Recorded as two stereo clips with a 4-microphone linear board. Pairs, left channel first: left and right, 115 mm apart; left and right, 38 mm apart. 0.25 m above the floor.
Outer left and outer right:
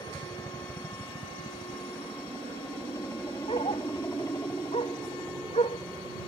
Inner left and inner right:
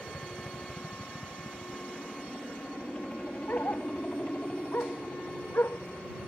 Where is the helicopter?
25° left (ahead or behind); by 6.3 s 30° left (ahead or behind).